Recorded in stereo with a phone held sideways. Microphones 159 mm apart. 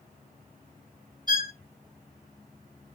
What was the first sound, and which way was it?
A violin, 25° right (ahead or behind).